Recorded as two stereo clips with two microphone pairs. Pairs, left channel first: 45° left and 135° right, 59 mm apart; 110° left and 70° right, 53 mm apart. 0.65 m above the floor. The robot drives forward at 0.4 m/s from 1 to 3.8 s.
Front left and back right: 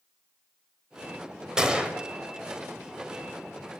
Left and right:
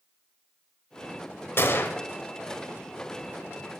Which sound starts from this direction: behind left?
A gunshot, at 1.6 s.